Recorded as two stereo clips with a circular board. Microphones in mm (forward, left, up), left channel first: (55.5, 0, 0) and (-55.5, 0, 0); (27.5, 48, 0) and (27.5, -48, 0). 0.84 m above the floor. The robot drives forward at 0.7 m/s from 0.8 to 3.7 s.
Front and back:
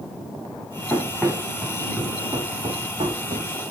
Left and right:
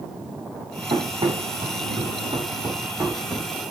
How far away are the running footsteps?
About 3 m.